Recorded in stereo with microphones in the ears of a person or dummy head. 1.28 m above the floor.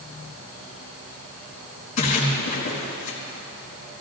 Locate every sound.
2.0 s a splash: 35° left (ahead or behind), 3.5 m